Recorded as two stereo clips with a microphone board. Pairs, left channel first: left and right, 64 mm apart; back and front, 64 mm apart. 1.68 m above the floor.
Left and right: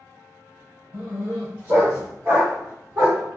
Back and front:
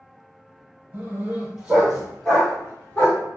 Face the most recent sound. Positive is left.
turn(degrees=-135)